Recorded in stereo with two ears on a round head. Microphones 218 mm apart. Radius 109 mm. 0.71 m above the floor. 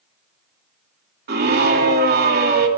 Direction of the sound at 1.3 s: 40° right (ahead or behind).